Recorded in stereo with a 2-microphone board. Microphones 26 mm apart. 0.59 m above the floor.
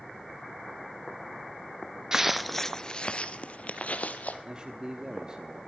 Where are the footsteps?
20° right (ahead or behind), 0.5 m; by 4.3 s 65° left (ahead or behind), 1.3 m.